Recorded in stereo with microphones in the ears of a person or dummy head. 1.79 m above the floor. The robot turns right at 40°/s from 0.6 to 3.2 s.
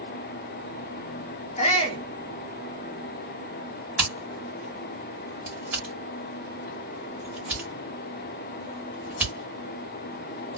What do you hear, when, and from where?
1.6 s a shout: 40° left (ahead or behind), 0.7 m; by 2.0 s 25° left (ahead or behind), 0.7 m
4.0 s scissors: 10° right (ahead or behind), 1.4 m